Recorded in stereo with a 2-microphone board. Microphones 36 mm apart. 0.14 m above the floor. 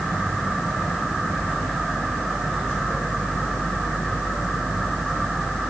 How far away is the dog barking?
No dog barking in this recording.